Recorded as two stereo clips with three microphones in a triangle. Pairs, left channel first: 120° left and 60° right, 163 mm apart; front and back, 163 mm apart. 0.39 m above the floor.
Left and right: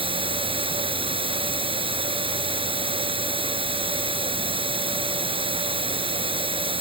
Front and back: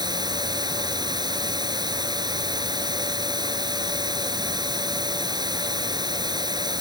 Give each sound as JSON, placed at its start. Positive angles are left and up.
{"t": 0.0, "sound": "running water", "azimuth_deg": -115}